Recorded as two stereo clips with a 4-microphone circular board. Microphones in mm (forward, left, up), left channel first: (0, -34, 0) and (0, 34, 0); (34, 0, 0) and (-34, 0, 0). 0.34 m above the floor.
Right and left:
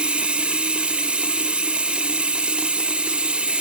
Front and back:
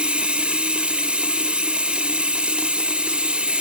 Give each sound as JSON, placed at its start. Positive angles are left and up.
{"t": 0.0, "sound": "running water", "azimuth_deg": 135, "distance_m": 0.8}